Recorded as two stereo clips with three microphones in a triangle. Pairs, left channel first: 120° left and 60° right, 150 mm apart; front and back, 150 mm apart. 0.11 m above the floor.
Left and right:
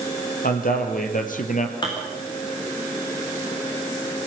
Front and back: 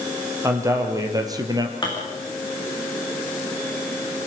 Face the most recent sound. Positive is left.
turn(degrees=60)